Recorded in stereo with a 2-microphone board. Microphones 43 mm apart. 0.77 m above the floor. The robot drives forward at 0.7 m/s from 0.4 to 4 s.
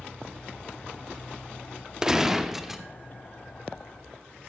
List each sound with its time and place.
2.0 s a gunshot: 15° right (ahead or behind), 0.5 m; by 2.8 s 5° right (ahead or behind), 1.1 m